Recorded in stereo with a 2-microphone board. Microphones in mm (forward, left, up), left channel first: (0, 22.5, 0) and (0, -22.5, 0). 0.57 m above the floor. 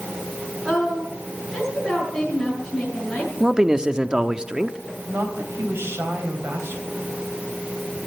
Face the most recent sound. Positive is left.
turn(degrees=-65)  # may be behind; listen again after turning